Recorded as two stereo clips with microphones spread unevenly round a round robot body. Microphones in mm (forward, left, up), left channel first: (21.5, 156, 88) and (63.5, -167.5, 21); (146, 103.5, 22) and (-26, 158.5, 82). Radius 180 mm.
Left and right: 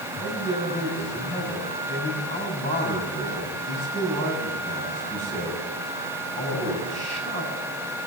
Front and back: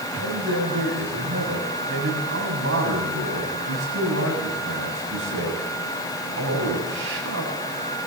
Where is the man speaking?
170° left, 8 m.